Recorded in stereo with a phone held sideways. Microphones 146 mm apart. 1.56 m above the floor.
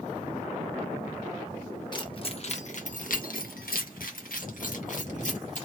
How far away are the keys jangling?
About 1.4 m.